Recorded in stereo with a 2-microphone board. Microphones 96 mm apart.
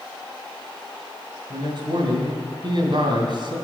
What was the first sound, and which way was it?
A man speaking, 55° right (ahead or behind).